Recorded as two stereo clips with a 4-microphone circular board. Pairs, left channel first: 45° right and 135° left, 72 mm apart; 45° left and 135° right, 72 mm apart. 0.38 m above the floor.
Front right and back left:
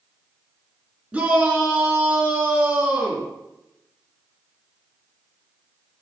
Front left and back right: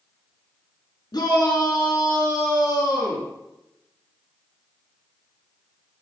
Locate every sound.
1.1 s a shout: 60° left, 5.5 m